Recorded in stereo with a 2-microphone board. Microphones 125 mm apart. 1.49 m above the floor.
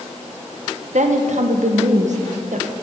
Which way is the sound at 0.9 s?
70° right (ahead or behind).